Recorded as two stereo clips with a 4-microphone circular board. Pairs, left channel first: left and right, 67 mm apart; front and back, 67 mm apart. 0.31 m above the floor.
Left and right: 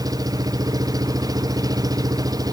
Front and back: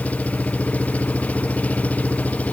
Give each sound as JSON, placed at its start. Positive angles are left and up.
{"t": 0.0, "sound": "an engine running", "azimuth_deg": -70}